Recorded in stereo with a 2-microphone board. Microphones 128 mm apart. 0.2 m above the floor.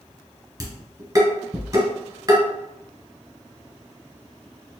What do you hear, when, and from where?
0.6 s dishes clattering: 35° right (ahead or behind), 1.8 m